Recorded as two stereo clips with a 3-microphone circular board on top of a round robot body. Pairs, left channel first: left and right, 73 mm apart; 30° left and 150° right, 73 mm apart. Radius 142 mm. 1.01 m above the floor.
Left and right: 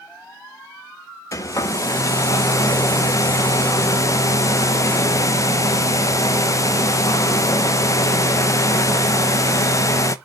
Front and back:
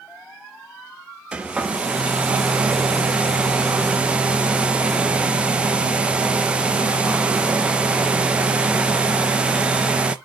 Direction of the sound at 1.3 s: 135° left.